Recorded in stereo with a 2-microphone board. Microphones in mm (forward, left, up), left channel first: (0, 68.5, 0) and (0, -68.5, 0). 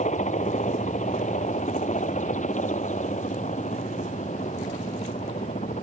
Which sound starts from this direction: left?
A helicopter, at 0.0 s.